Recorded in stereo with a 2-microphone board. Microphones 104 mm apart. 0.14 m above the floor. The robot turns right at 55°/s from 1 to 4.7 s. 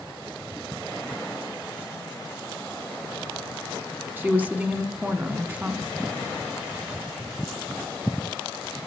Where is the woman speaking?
20° right (ahead or behind), 1.0 m; by 5.8 s 15° right (ahead or behind), 1.0 m.